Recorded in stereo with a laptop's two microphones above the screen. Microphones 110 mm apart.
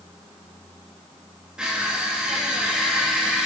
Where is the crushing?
5° right (ahead or behind), 1.3 m.